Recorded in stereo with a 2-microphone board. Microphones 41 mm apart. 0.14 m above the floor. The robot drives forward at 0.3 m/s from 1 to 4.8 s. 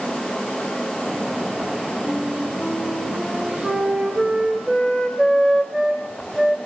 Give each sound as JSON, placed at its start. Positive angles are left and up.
{"t": 2.0, "sound": "a flute", "side_deg": -25, "distance_m": 7.0}